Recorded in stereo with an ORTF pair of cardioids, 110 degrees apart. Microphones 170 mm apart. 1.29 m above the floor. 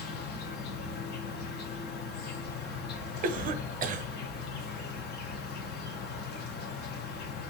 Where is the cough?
50° right, 0.7 m.